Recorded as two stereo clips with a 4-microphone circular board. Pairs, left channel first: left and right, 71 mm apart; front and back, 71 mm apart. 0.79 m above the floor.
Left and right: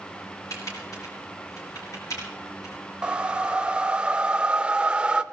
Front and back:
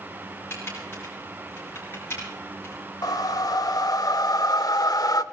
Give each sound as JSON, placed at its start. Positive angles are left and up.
{"t": 0.5, "sound": "typing on a keyboard", "azimuth_deg": 55, "distance_m": 5.5}
{"t": 3.0, "sound": "a whoosh", "azimuth_deg": -15, "distance_m": 0.7}